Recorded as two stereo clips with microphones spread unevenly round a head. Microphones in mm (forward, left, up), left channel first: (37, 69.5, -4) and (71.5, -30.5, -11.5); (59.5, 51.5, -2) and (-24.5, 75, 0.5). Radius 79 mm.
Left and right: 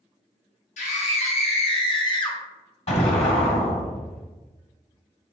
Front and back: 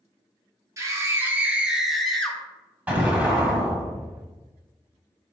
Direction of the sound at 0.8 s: 110° left.